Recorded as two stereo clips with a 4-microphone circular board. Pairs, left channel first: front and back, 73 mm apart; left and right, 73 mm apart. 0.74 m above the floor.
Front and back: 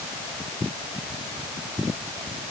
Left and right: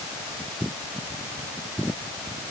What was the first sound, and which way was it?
Only background noise.